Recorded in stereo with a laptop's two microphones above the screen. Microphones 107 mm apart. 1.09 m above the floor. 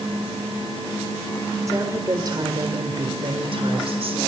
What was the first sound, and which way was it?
A woman speaking, 30° right (ahead or behind).